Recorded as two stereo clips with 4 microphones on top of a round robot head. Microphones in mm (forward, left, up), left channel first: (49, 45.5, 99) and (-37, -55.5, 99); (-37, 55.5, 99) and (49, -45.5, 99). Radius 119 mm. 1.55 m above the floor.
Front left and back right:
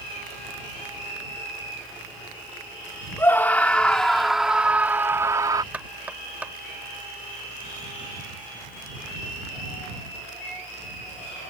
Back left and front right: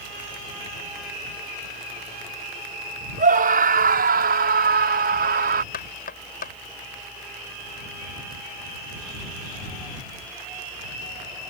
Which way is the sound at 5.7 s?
150° left.